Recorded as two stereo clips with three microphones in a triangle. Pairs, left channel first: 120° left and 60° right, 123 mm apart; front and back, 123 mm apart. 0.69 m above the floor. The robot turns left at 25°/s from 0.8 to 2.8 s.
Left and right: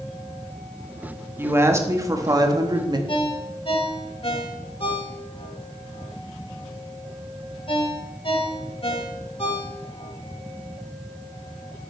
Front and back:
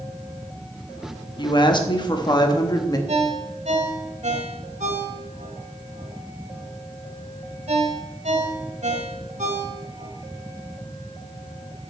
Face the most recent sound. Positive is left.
turn(degrees=160)